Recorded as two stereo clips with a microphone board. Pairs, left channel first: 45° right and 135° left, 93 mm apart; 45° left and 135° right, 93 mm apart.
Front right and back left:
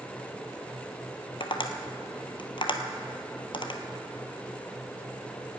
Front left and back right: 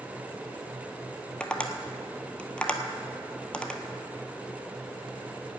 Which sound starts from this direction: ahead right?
Tapping, at 1.4 s.